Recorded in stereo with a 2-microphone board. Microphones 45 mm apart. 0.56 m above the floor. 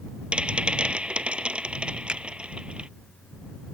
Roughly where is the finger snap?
Right.